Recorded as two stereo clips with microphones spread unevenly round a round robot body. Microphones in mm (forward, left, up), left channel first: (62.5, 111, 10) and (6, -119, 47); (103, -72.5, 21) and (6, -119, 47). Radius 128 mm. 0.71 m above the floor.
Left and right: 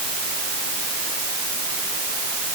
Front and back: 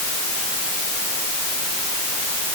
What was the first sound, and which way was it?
Only background noise.